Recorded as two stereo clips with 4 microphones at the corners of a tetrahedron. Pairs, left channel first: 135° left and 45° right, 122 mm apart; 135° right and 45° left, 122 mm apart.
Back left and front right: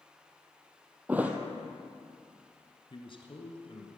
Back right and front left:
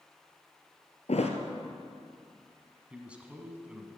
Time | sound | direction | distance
1.1 | a thud | 120° right | 1.3 m
2.9 | a man speaking | 120° left | 1.7 m